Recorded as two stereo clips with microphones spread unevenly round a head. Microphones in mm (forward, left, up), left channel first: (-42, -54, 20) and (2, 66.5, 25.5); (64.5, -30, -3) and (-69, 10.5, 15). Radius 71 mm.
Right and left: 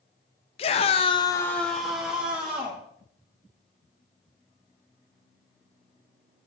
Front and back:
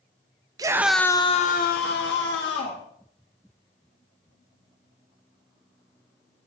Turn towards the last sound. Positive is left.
turn(degrees=-5)